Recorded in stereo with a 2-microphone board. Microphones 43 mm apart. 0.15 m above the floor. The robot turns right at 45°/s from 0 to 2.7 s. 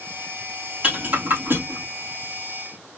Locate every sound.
0.8 s a rattle: 25° right (ahead or behind), 3.5 m; by 1.9 s 65° right (ahead or behind), 3.5 m